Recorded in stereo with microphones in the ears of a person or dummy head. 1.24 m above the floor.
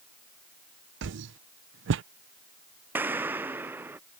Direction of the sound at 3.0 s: 10° right (ahead or behind).